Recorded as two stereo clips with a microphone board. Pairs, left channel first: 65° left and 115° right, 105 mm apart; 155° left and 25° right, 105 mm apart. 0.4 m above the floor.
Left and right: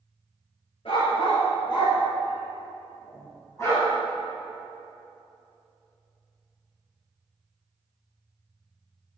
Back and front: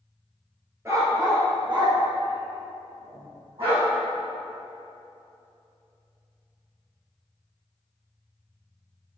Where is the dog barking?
40° left, 2.0 m; by 3.9 s 5° left, 5.5 m.